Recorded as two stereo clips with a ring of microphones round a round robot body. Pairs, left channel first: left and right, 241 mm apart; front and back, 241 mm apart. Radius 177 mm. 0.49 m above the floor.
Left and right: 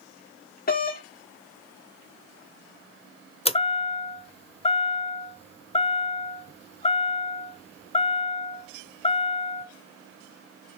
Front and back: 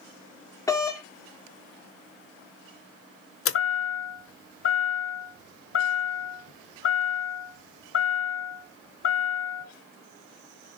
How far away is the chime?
About 1.0 m.